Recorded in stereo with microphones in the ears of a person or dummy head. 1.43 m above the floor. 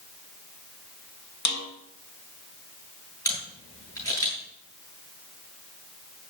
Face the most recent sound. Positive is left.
turn(degrees=20)  # may be behind; listen again after turning